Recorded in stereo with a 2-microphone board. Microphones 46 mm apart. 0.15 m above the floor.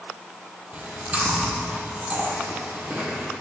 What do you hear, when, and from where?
0.7 s chewing: 30° right (ahead or behind), 1.6 m